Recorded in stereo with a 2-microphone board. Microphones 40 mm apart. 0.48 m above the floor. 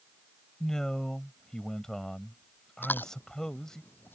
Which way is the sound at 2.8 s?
65° left (ahead or behind).